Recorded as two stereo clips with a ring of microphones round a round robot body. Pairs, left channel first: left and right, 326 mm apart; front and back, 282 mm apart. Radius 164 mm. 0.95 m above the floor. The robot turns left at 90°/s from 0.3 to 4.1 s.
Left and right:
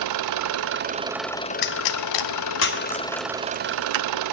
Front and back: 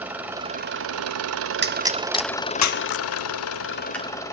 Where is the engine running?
95° right, 0.9 m; by 4.3 s 80° right, 0.9 m.